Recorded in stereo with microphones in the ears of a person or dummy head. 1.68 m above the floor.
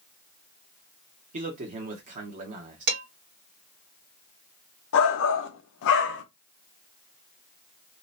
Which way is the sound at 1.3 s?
45° right (ahead or behind).